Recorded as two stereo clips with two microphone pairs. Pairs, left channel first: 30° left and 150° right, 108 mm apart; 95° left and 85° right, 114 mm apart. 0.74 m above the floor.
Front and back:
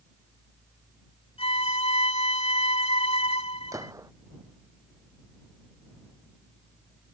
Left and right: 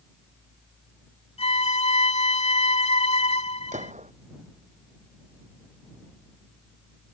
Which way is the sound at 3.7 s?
90° right.